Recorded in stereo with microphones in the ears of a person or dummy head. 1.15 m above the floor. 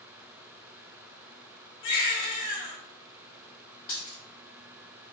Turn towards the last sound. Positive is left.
turn(degrees=15)  # may be behind; listen again after turning